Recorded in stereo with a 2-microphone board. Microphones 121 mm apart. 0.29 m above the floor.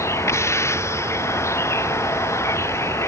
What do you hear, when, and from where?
0.0 s a vehicle: 25° left (ahead or behind)